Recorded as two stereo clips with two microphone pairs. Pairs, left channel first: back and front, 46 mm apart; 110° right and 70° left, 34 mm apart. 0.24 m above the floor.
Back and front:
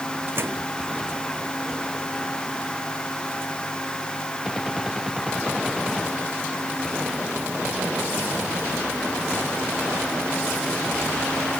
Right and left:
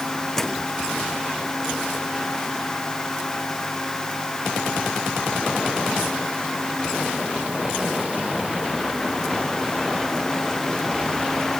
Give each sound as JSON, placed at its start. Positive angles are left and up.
{"t": 0.4, "sound": "a microwave", "azimuth_deg": -30}